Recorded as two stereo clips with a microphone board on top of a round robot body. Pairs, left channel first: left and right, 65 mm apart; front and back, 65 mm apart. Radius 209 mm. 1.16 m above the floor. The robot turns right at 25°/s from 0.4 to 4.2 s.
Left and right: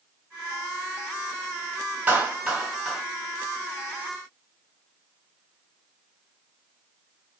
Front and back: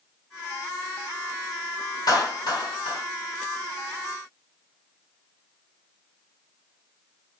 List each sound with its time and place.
2.1 s a clap: 25° right, 2.5 m; by 3.0 s straight ahead, 2.5 m